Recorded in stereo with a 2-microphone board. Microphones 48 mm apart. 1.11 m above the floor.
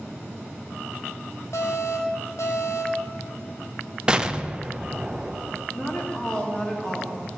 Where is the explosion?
20° right (ahead or behind), 0.6 m.